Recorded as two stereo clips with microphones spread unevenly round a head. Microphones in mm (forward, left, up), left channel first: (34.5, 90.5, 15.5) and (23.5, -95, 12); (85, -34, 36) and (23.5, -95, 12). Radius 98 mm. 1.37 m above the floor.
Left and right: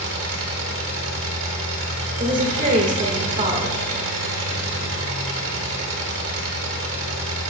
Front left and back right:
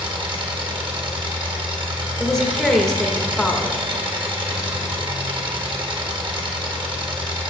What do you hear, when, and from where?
0.0 s an engine running: 110° right, 2.5 m
2.2 s a woman speaking: 45° right, 1.9 m